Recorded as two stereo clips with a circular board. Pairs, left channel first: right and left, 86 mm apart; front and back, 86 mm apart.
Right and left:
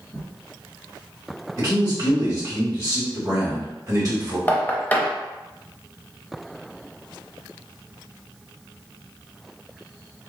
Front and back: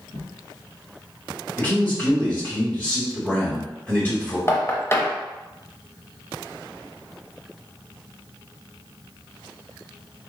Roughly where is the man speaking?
Ahead left.